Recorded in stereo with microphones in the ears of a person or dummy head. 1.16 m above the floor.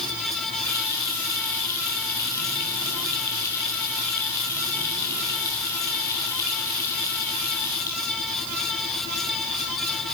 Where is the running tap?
15° left (ahead or behind), 2.5 m.